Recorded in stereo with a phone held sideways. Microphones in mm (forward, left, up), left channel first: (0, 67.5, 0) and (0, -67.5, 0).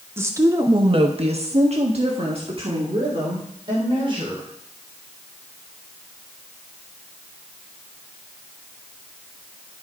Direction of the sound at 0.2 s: 20° right (ahead or behind).